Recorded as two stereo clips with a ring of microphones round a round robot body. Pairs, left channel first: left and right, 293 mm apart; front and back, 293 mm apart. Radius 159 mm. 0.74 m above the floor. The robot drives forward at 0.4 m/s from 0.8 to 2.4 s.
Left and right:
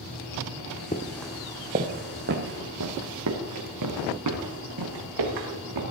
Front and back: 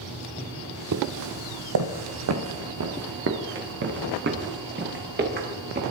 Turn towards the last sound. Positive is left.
turn(degrees=-120)